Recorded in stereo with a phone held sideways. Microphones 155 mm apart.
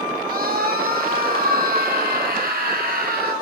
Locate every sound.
0.3 s a scream: 75° right (ahead or behind), 8 m; by 3.3 s 85° right, 9 m